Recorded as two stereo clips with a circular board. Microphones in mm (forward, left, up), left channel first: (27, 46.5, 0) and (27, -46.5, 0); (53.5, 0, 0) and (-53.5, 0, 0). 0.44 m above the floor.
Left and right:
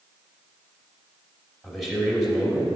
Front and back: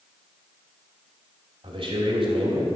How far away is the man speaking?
About 2.5 m.